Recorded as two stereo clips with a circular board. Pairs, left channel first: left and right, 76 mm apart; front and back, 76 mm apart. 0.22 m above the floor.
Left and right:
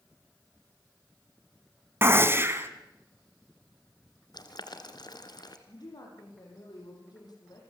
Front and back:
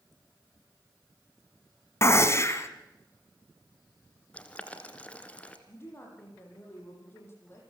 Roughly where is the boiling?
Left.